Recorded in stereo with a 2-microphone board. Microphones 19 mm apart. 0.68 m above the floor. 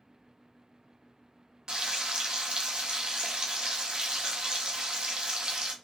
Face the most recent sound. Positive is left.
turn(degrees=-50)  # may be behind; listen again after turning